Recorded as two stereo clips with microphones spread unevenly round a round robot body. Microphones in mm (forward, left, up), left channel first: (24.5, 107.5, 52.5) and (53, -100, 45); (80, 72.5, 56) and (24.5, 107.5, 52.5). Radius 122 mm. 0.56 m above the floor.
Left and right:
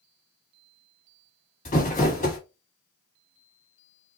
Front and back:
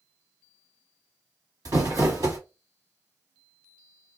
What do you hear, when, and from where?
1.6 s crumpling: 150° left, 1.6 m